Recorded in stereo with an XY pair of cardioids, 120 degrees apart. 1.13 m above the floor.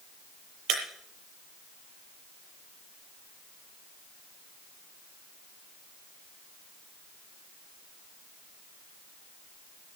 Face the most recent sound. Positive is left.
turn(degrees=-70)